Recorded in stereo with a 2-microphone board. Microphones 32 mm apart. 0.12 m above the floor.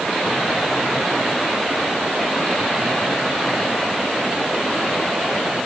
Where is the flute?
I don't hear a flute.